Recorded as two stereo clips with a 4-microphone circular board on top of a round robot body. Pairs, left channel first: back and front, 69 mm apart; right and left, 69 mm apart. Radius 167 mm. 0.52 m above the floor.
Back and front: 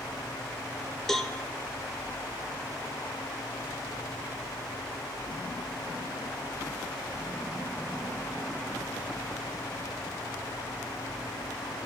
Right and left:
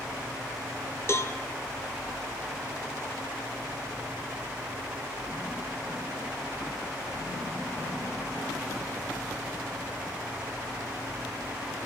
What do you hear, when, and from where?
1.1 s a cowbell: 100° right, 1.1 m